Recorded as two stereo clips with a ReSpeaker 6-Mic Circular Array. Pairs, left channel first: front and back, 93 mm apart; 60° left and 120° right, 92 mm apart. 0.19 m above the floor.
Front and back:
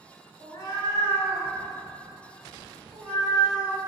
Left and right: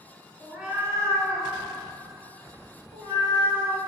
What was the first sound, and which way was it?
A cat meowing, 35° right.